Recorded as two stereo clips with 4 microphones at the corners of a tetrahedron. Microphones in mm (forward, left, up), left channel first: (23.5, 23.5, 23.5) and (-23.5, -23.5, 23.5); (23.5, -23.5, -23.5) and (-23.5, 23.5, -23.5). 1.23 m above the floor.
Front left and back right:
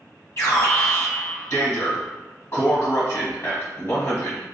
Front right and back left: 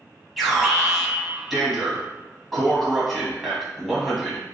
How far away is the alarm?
About 1.2 m.